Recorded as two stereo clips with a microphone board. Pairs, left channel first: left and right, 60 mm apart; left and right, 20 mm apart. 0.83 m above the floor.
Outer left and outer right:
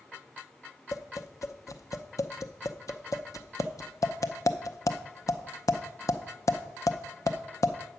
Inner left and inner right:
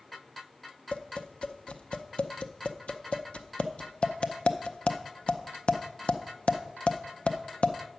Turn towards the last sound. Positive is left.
turn(degrees=65)  # may be behind; listen again after turning